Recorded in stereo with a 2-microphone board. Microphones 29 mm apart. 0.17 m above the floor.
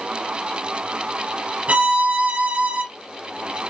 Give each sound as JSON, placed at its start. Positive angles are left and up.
{"t": 1.7, "sound": "a violin", "side_deg": -50, "distance_m": 0.7}